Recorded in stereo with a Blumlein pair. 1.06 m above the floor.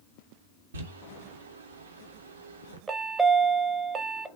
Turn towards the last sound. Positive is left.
turn(degrees=-15)